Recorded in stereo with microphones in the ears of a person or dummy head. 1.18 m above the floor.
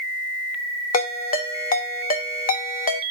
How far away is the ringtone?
About 1.0 m.